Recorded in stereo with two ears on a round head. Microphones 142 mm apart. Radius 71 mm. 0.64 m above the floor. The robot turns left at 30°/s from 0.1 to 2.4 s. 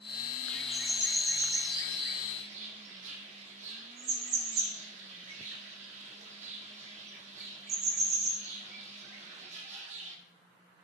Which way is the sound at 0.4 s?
5° left (ahead or behind).